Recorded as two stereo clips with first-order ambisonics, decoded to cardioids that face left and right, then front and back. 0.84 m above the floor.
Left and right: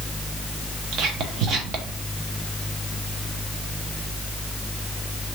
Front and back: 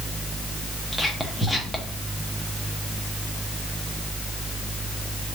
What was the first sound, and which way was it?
Whispering, 85° right.